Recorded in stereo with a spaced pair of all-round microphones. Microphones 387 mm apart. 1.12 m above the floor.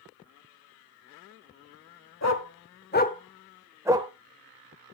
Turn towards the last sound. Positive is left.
turn(degrees=-15)  # may be behind; listen again after turning